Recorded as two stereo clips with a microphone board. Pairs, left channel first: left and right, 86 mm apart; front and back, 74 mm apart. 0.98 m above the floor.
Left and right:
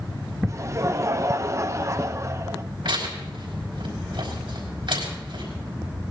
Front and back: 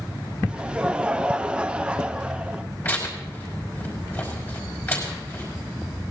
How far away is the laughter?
About 0.9 m.